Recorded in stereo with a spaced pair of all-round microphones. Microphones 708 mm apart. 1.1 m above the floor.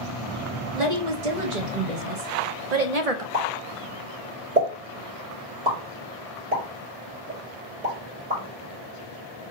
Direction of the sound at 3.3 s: 80° right.